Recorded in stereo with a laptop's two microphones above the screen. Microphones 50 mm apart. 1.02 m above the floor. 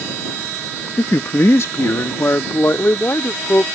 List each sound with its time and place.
1.0 s a man speaking: 65° left (ahead or behind); by 3.7 s 50° left (ahead or behind)